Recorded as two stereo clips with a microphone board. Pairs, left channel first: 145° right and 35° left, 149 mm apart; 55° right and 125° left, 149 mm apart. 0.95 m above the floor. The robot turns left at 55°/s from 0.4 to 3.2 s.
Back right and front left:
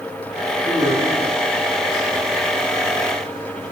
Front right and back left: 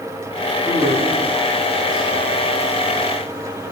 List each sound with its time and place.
0.7 s a man speaking: 155° right, 2.5 m; by 2.3 s 115° left, 2.5 m